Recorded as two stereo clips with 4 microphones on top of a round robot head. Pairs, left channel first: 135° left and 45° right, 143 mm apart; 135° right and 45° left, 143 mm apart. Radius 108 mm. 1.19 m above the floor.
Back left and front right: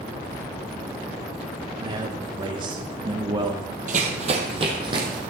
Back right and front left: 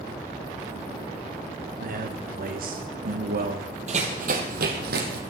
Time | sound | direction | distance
1.8 | a man speaking | 20° left | 1.1 m
3.9 | running footsteps | 5° right | 1.8 m